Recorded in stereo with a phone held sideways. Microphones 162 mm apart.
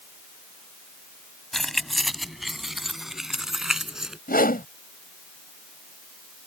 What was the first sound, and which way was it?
Keys jangling, centre (ahead or behind).